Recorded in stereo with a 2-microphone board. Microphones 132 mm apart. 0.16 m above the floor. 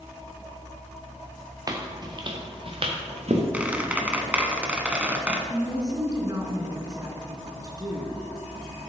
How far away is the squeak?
About 1.0 m.